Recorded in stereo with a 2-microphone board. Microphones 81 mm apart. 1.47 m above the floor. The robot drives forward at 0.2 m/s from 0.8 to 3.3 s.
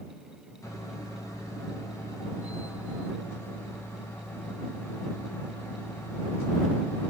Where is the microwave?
40° left (ahead or behind), 0.6 m; by 7.1 s 35° left (ahead or behind), 0.7 m.